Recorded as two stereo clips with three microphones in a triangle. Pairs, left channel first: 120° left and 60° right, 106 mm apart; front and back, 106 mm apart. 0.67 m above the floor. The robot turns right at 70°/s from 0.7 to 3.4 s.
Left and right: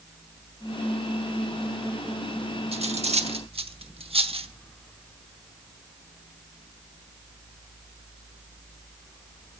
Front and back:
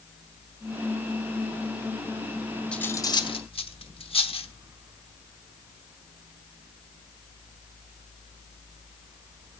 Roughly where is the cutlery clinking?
Right.